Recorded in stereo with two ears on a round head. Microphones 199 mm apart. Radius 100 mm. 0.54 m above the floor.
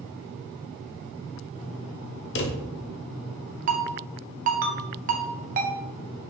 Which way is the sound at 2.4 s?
50° left (ahead or behind).